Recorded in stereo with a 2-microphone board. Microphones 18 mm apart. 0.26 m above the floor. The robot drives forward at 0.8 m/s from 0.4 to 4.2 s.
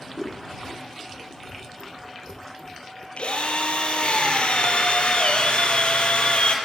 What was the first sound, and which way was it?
Scissors, 45° right (ahead or behind).